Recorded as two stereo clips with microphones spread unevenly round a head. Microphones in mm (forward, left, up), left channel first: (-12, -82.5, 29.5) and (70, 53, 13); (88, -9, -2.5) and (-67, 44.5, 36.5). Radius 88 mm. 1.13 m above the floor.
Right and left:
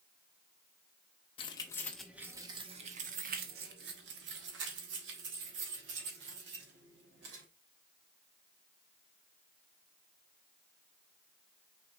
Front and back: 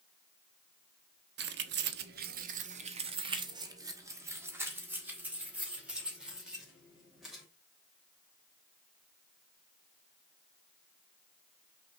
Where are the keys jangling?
Straight behind, 0.8 m; by 7.4 s 75° left, 3 m.